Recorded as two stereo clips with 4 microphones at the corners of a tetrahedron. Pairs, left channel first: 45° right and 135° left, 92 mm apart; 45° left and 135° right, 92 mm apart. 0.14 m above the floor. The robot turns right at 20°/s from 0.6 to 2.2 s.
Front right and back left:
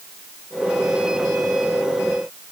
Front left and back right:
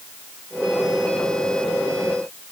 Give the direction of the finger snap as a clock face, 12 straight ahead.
No finger snap in this recording.